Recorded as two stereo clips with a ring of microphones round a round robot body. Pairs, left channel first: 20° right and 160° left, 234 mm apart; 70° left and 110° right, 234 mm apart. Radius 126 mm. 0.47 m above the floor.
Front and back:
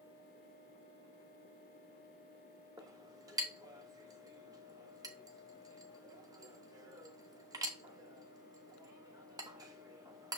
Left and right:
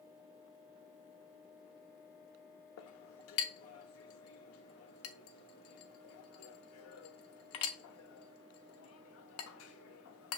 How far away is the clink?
About 0.8 m.